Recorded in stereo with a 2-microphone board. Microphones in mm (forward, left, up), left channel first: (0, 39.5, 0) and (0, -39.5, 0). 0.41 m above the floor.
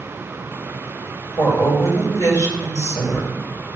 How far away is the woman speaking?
About 2.5 m.